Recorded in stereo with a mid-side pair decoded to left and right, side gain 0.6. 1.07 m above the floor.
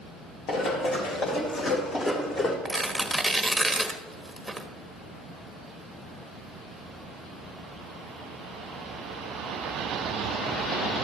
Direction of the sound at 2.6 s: 5° right.